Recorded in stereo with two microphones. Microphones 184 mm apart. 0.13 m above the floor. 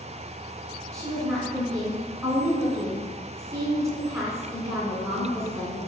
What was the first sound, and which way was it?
A woman speaking, 15° right (ahead or behind).